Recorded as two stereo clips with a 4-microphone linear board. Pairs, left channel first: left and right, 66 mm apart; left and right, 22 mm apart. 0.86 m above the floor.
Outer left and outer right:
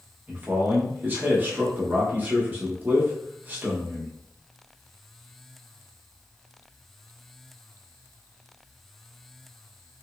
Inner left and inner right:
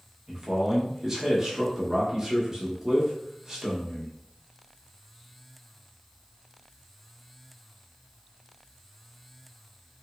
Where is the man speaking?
25° right (ahead or behind), 1.0 m.